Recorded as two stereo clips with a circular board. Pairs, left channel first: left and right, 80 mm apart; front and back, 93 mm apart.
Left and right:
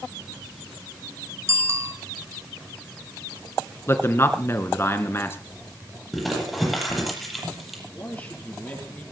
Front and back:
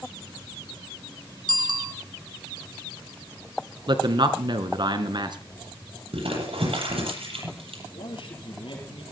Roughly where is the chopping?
I don't hear chopping.